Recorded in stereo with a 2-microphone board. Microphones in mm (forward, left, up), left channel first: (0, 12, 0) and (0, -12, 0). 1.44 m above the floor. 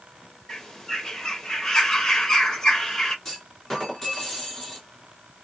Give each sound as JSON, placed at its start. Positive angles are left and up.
{"t": 0.5, "sound": "a bird", "side_deg": 25, "distance_m": 1.3}
{"t": 3.2, "sound": "a clunk", "side_deg": 20, "distance_m": 3.0}